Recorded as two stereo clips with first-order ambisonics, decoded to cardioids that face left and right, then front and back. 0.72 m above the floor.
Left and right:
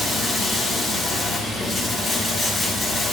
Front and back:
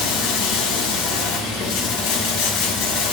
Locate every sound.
0.0 s running water: straight ahead, 1.3 m